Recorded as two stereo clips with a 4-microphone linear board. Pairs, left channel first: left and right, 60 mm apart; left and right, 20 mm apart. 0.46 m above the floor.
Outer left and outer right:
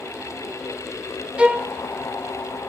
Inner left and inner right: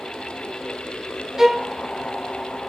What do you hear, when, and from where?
1.4 s a violin: 20° right (ahead or behind), 0.6 m